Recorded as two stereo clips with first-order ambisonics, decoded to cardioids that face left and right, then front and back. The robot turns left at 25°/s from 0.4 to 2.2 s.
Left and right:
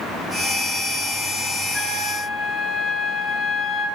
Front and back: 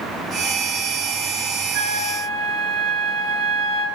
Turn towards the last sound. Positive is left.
turn(degrees=165)